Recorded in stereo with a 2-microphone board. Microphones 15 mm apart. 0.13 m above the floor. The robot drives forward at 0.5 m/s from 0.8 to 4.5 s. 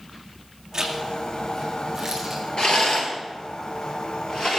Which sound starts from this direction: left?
A rattle, at 2.6 s.